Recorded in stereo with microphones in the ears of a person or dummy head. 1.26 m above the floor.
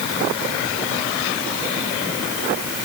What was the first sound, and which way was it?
Only background noise.